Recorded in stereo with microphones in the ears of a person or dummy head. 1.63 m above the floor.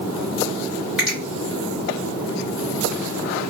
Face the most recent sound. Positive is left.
turn(degrees=-5)  # may be behind; listen again after turning